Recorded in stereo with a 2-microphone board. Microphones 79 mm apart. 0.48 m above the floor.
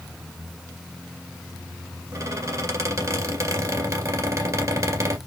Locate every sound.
2.1 s a squeak: 40° right (ahead or behind), 2 m